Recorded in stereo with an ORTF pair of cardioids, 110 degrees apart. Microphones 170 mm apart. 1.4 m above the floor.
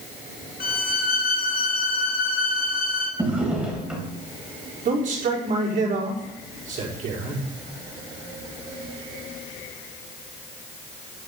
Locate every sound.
0.6 s a violin: 60° left, 2.5 m
3.2 s a drawer: 5° right, 3.5 m
4.8 s a man speaking: 50° right, 4.5 m